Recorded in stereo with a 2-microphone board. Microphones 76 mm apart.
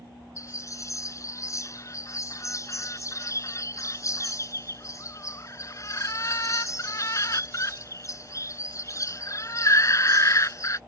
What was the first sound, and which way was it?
A bird, 40° left (ahead or behind).